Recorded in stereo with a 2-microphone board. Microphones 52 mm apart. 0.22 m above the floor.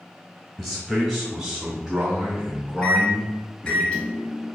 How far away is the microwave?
About 0.7 m.